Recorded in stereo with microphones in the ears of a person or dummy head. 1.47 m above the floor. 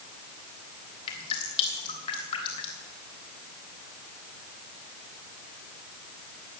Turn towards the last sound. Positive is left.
turn(degrees=30)  # may be behind; listen again after turning